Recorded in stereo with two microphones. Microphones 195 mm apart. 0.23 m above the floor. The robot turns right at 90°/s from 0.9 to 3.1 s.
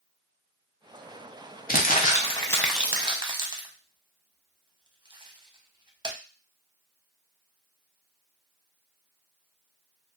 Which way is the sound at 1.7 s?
50° left (ahead or behind).